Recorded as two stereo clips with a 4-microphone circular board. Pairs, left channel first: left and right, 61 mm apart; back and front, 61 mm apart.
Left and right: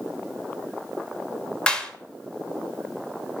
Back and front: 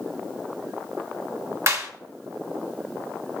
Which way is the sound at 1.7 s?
20° left.